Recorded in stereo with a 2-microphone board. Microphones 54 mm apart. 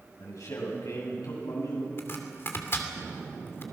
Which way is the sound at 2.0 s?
45° left (ahead or behind).